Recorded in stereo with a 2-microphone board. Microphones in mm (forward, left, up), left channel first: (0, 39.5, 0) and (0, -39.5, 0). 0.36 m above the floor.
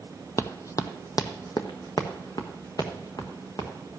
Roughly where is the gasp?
I don't hear a gasp.